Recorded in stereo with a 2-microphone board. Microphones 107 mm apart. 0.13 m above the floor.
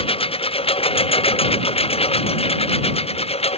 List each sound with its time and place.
0.0 s a lawn mower: 55° left (ahead or behind); by 3.6 s 65° left (ahead or behind)